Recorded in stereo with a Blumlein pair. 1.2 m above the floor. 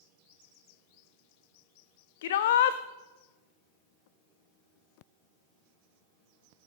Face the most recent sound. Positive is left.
turn(degrees=55)